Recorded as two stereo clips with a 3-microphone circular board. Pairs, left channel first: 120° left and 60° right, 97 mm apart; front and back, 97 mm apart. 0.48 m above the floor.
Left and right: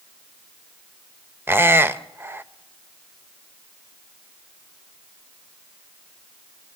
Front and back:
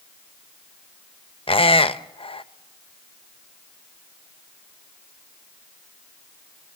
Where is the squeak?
5° left, 0.7 m.